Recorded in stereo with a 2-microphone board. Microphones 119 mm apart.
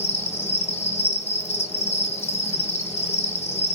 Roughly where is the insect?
Left.